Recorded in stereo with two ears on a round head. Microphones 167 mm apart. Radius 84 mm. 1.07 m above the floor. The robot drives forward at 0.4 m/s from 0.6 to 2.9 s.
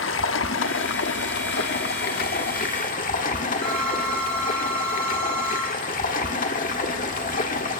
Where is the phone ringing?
5° left (ahead or behind), 9.5 m.